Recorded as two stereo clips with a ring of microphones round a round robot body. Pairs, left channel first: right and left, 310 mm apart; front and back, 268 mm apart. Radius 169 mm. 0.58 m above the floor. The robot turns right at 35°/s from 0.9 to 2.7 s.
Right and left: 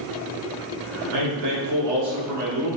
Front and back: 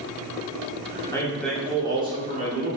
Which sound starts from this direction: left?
A man speaking, at 1.1 s.